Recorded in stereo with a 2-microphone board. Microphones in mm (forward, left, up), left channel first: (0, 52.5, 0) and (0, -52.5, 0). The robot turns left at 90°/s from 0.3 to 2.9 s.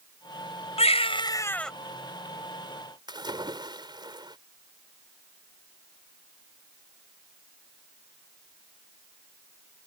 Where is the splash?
45° right (ahead or behind).